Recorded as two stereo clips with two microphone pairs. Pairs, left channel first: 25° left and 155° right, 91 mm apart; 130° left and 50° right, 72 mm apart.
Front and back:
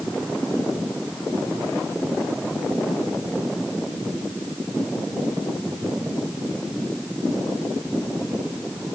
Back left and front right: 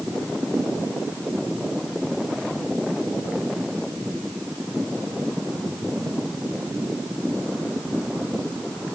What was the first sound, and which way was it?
Only background noise.